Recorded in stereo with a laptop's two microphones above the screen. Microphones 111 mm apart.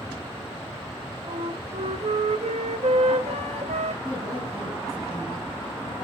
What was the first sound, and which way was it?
A flute, 80° right.